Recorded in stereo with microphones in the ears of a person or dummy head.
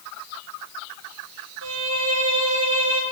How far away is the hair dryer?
I don't hear a hair dryer.